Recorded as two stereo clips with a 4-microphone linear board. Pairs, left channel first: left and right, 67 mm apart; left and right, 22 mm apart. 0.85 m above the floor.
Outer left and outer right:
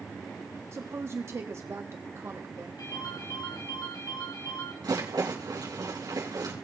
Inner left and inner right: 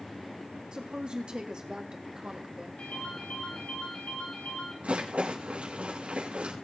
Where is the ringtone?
85° left, 6.5 m.